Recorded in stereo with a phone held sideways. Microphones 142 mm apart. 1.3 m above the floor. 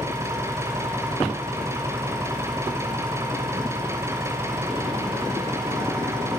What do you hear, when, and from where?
0.0 s an engine running: 20° right (ahead or behind), 5.5 m